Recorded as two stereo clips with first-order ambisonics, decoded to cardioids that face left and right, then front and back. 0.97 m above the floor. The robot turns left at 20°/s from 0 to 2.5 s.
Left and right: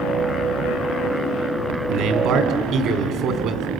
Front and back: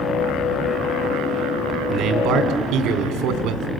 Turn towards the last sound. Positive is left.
turn(degrees=-135)